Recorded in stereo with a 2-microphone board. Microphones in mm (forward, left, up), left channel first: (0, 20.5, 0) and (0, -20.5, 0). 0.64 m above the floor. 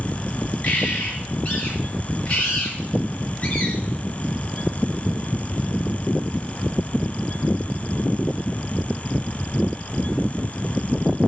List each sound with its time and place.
0.6 s a bird: 40° left (ahead or behind), 5 m